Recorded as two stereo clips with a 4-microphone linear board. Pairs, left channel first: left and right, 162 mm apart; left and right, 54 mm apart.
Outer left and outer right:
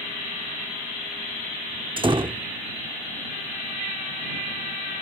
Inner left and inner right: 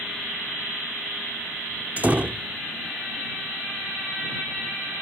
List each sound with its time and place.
2.0 s a door slam: 30° right (ahead or behind)